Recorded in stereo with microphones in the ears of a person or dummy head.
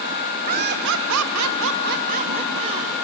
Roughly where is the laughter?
Right.